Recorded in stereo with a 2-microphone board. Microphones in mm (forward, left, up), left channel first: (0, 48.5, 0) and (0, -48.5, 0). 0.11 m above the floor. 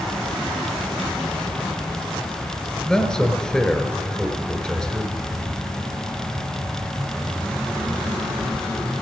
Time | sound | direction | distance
2.9 | a man speaking | 10° left (ahead or behind) | 1.5 m